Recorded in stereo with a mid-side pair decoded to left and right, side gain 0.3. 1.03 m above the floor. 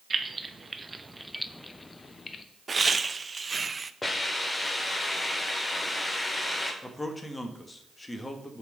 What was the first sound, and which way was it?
Keys jangling, 45° right.